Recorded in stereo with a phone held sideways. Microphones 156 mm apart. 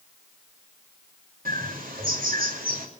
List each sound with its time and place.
1.4 s a bird: 70° right (ahead or behind), 2.5 m